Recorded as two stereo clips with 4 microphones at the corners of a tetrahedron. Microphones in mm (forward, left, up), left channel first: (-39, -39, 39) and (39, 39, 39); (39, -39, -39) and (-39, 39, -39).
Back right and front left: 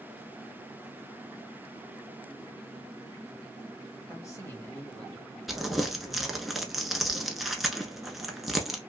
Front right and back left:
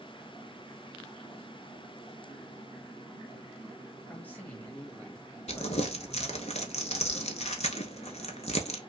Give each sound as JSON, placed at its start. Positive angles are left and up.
{"t": 4.1, "sound": "a man speaking", "azimuth_deg": -110, "distance_m": 1.3}
{"t": 5.5, "sound": "crumpling", "azimuth_deg": -45, "distance_m": 0.7}